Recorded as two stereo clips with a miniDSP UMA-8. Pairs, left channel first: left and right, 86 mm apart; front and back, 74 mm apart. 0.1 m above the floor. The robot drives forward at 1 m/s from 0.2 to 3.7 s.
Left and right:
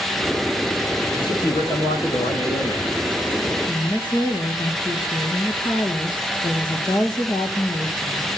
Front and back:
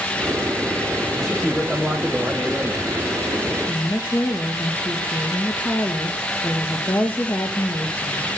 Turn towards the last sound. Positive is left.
turn(degrees=65)